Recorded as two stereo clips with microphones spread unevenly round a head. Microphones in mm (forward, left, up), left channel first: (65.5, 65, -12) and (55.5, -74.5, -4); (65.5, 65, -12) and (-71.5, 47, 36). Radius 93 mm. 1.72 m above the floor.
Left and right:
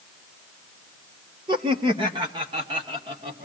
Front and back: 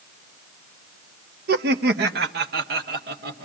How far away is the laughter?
About 1.0 m.